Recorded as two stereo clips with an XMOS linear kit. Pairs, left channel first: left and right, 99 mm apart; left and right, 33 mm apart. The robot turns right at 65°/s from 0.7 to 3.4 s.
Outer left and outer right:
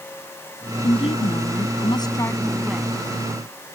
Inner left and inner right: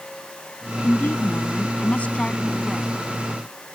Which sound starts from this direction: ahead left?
A woman speaking, at 0.8 s.